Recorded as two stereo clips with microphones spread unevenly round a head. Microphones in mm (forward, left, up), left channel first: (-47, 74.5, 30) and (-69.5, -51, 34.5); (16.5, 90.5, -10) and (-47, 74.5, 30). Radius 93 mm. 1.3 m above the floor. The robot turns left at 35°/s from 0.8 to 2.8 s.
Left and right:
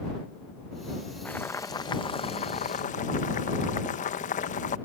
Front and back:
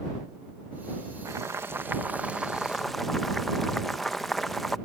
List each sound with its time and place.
1.2 s boiling: 160° left; by 4.8 s 105° left